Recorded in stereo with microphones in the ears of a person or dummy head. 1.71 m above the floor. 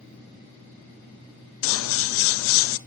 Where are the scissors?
75° left (ahead or behind), 0.8 m.